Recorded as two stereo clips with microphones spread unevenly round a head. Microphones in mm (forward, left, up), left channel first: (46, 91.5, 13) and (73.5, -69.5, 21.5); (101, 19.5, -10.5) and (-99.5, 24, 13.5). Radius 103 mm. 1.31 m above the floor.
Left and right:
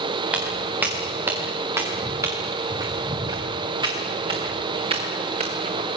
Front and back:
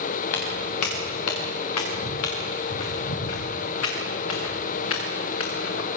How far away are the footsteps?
About 7 m.